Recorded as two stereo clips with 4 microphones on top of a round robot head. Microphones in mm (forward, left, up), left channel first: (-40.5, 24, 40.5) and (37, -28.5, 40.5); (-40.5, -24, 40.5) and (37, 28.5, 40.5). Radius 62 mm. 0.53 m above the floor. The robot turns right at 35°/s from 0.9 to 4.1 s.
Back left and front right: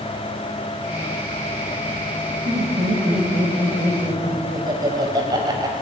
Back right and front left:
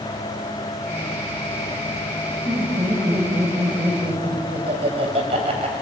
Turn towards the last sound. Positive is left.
turn(degrees=15)